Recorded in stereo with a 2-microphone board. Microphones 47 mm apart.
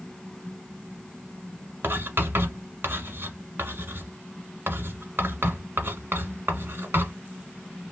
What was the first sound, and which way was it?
Writing, 50° right (ahead or behind).